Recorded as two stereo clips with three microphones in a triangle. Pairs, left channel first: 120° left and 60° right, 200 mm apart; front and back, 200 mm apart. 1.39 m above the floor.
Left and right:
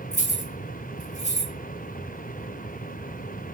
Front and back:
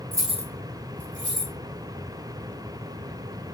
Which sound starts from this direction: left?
Keys jangling, at 0.1 s.